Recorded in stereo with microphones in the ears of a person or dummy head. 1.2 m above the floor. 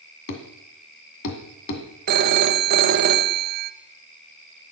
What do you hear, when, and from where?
0.3 s a thud: 60° left (ahead or behind), 2.0 m
2.1 s a phone ringing: 50° right (ahead or behind), 1.0 m